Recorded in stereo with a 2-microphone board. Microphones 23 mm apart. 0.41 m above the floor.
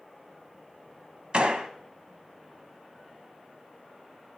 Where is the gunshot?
50° right (ahead or behind), 1.0 m.